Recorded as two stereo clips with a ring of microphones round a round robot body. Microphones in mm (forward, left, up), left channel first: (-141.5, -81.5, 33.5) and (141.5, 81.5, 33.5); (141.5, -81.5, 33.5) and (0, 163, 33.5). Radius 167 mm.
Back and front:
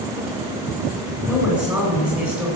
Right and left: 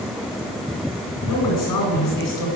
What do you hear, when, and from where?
1.2 s a woman speaking: 55° right, 10 m